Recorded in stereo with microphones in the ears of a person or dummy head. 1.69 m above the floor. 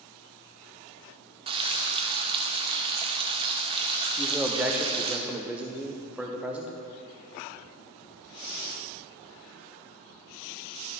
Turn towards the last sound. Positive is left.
turn(degrees=-10)  # may be behind; listen again after turning